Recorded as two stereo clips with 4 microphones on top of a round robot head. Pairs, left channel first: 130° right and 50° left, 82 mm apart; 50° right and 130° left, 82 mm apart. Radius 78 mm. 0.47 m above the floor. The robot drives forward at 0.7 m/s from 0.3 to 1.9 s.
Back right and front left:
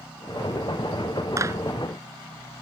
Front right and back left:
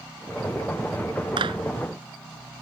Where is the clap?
105° left.